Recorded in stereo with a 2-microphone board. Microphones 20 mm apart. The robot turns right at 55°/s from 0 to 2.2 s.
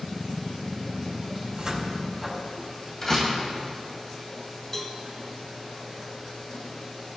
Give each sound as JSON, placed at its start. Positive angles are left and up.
{"t": 1.4, "sound": "a cupboard door", "side_deg": -45, "distance_m": 2.5}
{"t": 3.0, "sound": "a door slam", "side_deg": 20, "distance_m": 2.5}
{"t": 4.7, "sound": "a cowbell", "side_deg": 25, "distance_m": 1.2}